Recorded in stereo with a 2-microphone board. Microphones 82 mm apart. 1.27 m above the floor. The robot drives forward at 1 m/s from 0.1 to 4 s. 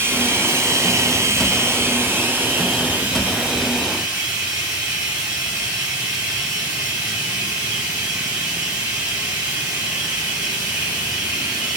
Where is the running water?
25° right (ahead or behind), 1.6 m; by 11.8 s 15° right (ahead or behind), 3.5 m.